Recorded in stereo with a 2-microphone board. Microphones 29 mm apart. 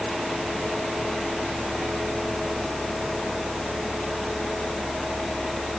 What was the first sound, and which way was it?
Only background noise.